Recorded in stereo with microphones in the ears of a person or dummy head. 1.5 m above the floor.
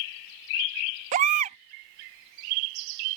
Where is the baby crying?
45° right (ahead or behind).